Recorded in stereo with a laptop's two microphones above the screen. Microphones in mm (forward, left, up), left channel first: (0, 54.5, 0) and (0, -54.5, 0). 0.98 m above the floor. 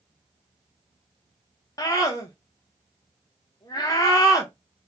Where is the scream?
35° left (ahead or behind), 0.7 m.